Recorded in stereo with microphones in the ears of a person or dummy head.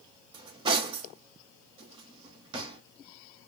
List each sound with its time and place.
0.3 s cutlery clinking: 25° right (ahead or behind), 0.7 m